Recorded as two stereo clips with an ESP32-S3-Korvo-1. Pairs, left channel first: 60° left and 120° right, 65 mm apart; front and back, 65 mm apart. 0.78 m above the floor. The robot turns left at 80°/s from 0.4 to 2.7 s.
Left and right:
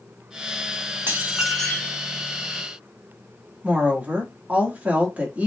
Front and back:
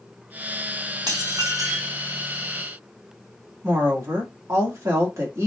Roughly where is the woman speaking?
Behind.